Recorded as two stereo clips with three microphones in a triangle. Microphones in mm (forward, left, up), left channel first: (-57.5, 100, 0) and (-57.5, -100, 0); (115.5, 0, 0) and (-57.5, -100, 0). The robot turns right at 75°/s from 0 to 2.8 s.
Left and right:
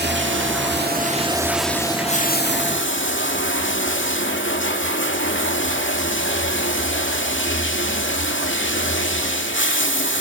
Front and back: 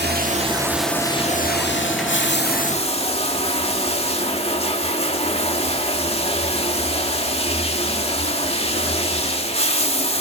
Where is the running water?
120° right, 1.9 m; by 10.2 s 90° left, 1.9 m.